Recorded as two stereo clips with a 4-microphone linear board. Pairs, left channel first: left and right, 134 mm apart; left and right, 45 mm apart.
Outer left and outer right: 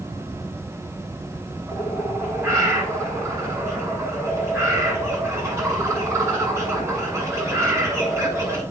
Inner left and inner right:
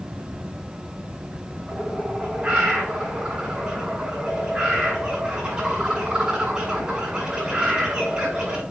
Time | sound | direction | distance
1.7 | a bird | 20° right (ahead or behind) | 5 m